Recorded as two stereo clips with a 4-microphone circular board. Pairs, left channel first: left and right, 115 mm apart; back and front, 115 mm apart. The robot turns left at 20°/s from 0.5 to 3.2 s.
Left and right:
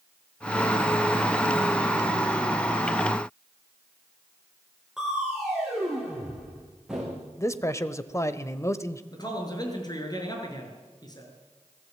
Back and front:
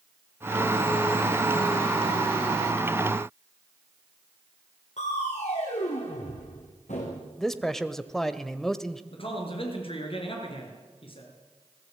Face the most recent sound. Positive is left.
turn(degrees=145)